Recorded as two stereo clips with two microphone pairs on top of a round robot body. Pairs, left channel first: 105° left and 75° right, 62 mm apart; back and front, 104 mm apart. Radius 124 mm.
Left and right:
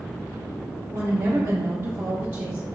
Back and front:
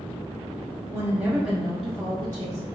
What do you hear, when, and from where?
0.9 s a woman speaking: 45° right, 1.1 m; by 2.7 s 130° right, 1.4 m